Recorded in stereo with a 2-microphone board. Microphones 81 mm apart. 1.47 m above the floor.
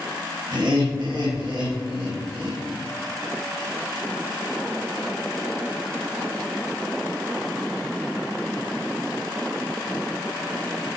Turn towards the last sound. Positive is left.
turn(degrees=-60)  # may be behind; listen again after turning